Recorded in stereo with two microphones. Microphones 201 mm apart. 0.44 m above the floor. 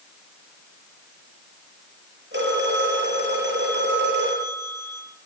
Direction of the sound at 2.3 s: 70° right (ahead or behind).